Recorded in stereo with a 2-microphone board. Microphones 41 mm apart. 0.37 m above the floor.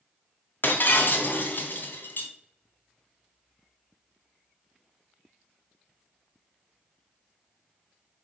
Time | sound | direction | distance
0.6 | breaking glass | 60° left (ahead or behind) | 1.1 m